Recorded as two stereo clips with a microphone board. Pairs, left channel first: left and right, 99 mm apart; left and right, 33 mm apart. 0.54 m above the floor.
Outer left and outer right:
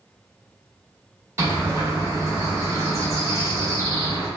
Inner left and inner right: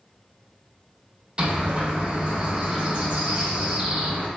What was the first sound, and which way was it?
A bird, 30° right (ahead or behind).